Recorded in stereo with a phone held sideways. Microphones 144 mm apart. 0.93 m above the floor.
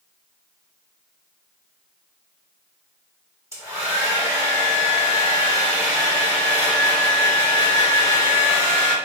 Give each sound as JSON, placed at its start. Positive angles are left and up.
{"t": 3.5, "sound": "a hair dryer", "side_deg": -20, "distance_m": 1.3}